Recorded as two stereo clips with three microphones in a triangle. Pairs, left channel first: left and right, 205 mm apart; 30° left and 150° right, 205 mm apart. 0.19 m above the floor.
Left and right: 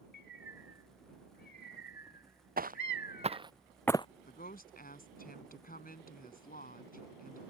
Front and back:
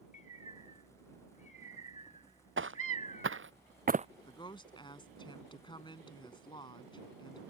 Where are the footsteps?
135° right; by 4.1 s 155° left.